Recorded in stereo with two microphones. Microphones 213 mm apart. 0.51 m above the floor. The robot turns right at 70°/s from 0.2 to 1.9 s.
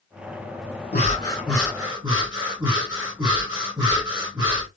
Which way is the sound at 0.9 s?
135° left.